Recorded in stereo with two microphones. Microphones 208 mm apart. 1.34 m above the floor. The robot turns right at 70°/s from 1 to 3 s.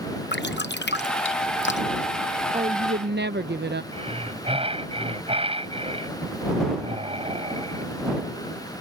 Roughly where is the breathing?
Right.